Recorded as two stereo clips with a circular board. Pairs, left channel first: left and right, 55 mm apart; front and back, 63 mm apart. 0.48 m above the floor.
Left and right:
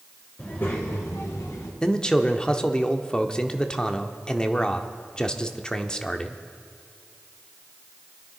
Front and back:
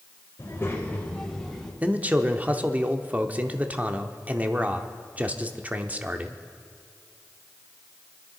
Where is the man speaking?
150° left, 0.7 m.